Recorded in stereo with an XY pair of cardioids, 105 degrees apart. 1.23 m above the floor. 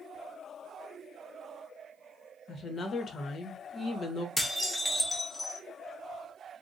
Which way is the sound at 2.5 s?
45° left.